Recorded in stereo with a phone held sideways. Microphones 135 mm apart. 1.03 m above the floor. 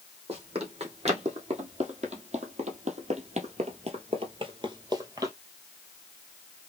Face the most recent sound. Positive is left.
turn(degrees=-20)  # may be behind; listen again after turning